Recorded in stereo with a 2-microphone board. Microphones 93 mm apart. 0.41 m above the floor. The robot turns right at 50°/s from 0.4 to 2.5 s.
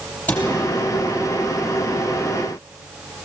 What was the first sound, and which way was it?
A cupboard door, 20° left (ahead or behind).